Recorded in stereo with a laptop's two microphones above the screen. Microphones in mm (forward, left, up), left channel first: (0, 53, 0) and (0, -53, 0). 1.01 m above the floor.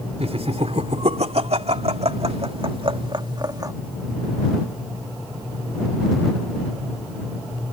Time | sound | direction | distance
0.2 | laughter | 75° right (ahead or behind) | ?